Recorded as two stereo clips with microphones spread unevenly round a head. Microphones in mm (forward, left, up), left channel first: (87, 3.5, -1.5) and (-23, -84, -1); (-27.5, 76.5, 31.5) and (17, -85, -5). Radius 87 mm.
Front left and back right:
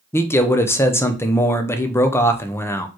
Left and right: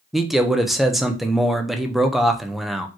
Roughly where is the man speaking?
Ahead.